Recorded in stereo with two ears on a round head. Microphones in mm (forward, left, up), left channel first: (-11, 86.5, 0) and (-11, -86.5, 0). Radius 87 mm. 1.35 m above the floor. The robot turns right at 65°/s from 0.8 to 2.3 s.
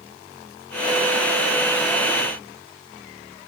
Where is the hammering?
I don't hear hammering.